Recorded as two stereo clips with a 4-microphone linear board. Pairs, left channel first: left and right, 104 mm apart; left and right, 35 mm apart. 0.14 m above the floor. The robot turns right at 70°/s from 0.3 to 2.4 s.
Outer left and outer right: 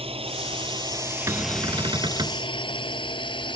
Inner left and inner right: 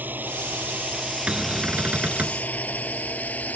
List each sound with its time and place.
0.0 s a drone: 65° right (ahead or behind); by 3.6 s 50° left (ahead or behind)
1.3 s a cupboard door: 135° right; by 2.4 s 60° right